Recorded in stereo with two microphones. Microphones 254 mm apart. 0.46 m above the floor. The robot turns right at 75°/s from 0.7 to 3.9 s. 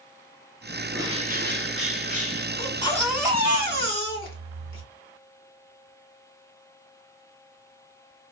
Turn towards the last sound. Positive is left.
turn(degrees=-120)